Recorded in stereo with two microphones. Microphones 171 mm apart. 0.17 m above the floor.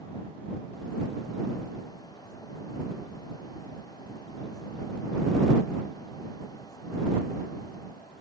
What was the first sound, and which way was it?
Only background noise.